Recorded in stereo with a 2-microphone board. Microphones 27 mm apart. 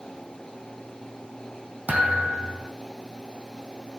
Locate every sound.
1.9 s a thud: 80° right, 2.5 m